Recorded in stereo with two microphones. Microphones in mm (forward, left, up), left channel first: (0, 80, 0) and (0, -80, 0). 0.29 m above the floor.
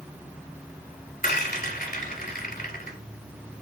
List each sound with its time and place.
1.2 s a rattle: 65° left (ahead or behind), 1.1 m